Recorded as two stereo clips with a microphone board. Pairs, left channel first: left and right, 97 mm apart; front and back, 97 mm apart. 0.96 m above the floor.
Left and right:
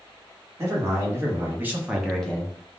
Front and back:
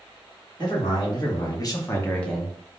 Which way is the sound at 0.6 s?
30° right.